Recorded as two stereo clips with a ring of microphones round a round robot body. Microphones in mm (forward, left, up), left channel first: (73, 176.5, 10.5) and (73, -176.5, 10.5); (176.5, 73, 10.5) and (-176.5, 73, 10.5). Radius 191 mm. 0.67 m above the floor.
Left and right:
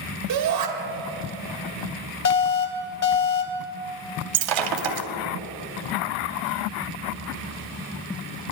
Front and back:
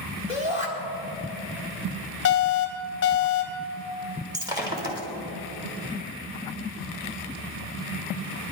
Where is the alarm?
50° left, 1.5 m.